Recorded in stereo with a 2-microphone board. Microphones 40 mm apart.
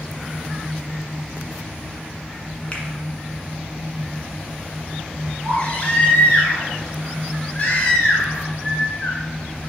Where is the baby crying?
30° left (ahead or behind), 2.0 m.